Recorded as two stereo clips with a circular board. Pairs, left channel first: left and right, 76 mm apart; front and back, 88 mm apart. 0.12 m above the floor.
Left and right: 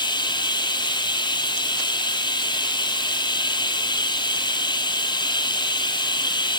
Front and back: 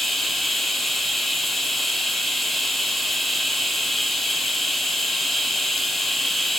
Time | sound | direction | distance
0.0 | running water | 90° left | 2 m